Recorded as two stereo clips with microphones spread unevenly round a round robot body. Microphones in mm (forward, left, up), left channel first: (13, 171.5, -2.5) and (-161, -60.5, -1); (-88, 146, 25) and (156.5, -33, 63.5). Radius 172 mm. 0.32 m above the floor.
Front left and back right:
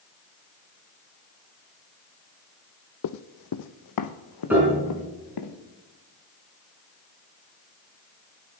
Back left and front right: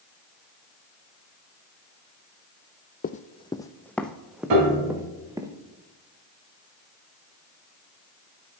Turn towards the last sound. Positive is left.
turn(degrees=-40)